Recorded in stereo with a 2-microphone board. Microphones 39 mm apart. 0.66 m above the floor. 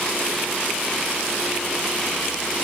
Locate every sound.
Only background noise.